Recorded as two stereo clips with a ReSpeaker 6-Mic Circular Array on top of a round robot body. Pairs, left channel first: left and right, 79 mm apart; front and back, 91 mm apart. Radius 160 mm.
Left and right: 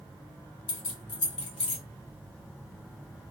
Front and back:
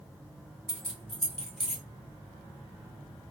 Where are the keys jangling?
85° left, 0.6 m.